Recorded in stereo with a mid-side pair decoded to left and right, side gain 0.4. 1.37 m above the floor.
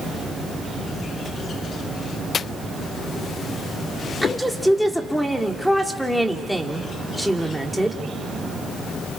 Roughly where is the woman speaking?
Ahead.